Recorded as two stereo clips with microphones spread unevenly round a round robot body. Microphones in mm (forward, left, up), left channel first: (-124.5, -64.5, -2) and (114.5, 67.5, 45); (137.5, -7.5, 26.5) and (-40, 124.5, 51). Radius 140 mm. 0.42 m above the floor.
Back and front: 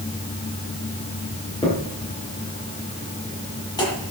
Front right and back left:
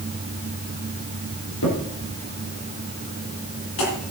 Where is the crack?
75° right, 8.5 m.